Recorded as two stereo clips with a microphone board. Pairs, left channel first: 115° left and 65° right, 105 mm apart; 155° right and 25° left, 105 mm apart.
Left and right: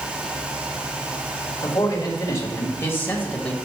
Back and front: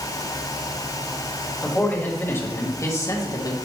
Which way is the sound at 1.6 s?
135° left.